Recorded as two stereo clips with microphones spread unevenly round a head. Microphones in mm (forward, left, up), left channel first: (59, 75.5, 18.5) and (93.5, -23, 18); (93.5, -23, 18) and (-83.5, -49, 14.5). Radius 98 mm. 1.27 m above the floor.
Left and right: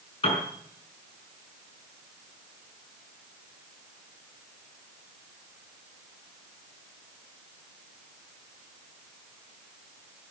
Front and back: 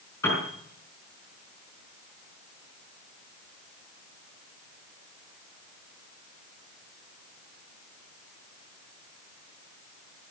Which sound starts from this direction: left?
A piano, at 0.2 s.